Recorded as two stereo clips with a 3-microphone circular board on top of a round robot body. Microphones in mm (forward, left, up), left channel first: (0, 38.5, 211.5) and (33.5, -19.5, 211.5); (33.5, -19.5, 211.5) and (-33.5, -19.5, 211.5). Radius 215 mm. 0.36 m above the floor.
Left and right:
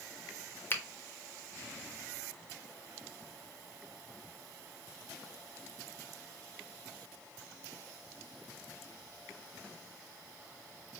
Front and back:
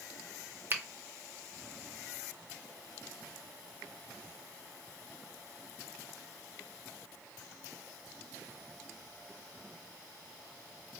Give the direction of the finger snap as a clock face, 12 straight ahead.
7 o'clock.